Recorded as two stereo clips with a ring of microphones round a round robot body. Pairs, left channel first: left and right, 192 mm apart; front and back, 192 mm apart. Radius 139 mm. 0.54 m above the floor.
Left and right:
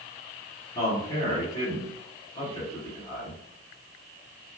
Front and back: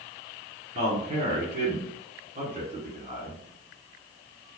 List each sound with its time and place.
0.8 s a man speaking: 150° left, 1.5 m